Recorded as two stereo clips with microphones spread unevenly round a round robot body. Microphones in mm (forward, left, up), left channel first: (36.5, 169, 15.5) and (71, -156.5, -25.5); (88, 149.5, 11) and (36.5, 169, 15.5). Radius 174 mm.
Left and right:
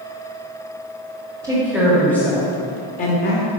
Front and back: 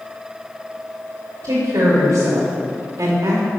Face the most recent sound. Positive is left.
turn(degrees=160)